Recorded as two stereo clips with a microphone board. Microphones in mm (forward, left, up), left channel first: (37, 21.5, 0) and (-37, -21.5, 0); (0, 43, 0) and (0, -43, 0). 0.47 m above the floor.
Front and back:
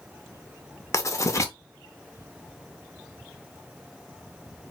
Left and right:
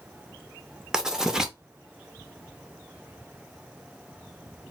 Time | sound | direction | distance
0.9 | writing | 10° right | 0.5 m